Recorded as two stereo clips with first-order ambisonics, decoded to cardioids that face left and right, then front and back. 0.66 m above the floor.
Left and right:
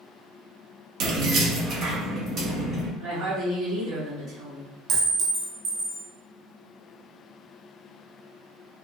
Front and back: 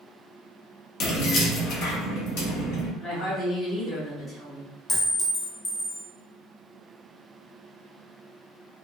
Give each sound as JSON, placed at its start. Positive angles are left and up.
{"t": 1.0, "sound": "keys jangling", "azimuth_deg": -50, "distance_m": 0.5}
{"t": 3.0, "sound": "a woman speaking", "azimuth_deg": -85, "distance_m": 1.8}
{"t": 4.9, "sound": "a clink", "azimuth_deg": -65, "distance_m": 0.6}